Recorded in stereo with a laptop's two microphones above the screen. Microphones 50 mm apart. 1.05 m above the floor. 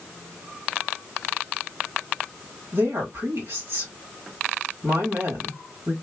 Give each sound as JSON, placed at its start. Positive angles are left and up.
{"t": 2.7, "sound": "a woman speaking", "side_deg": -65, "distance_m": 1.6}